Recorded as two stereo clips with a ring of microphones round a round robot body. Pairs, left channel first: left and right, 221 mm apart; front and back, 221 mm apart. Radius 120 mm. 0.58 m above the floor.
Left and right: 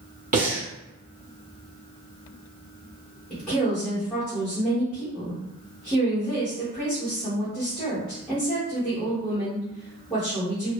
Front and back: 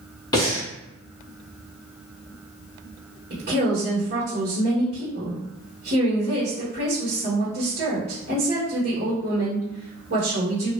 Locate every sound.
0.3 s breathing: 65° right, 1.5 m
3.3 s a woman speaking: 175° left, 1.6 m